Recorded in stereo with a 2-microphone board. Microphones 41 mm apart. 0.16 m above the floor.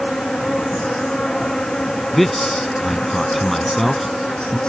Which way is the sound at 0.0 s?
20° left (ahead or behind).